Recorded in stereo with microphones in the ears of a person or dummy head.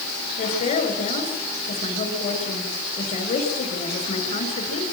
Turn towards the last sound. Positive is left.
turn(degrees=35)  # may be behind; listen again after turning